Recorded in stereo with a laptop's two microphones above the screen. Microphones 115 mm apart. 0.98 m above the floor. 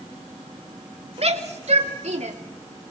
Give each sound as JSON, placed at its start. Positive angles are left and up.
{"t": 1.2, "sound": "a shout", "side_deg": -65, "distance_m": 2.5}